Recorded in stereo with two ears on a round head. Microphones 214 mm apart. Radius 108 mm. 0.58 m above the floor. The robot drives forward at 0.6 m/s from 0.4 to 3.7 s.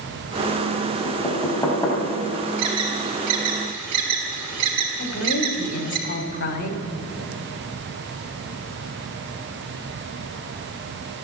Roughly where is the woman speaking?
Left.